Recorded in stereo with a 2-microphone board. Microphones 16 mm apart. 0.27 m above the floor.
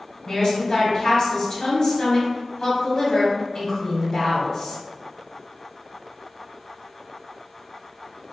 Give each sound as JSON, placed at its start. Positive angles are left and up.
{"t": 0.2, "sound": "a woman speaking", "side_deg": 35, "distance_m": 1.7}